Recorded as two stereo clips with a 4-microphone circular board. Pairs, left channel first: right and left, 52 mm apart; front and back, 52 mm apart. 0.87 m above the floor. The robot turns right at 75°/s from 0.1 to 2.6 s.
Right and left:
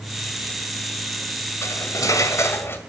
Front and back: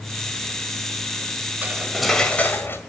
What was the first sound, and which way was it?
Cutlery clinking, 125° right.